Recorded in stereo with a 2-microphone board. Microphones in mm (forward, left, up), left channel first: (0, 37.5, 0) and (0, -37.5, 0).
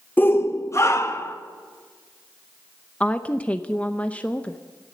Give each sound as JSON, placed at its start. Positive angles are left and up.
{"t": 0.2, "sound": "a shout", "side_deg": 20, "distance_m": 0.7}
{"t": 3.0, "sound": "a woman speaking", "side_deg": 15, "distance_m": 0.7}